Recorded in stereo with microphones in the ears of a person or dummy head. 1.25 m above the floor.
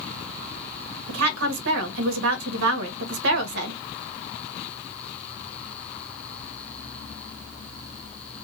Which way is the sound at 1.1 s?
70° right (ahead or behind).